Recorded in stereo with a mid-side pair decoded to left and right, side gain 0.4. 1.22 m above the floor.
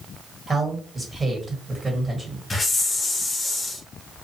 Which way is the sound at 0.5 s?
25° right.